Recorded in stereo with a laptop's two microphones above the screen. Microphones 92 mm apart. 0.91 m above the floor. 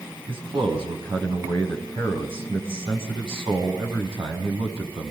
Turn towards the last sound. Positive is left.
turn(degrees=-80)